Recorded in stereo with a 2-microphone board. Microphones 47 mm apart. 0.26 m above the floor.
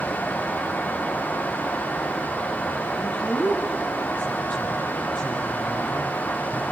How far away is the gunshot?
No gunshot in this recording.